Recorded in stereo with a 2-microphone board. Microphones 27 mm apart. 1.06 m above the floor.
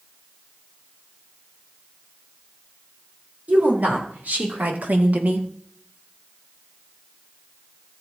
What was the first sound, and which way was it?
A woman speaking, 80° right.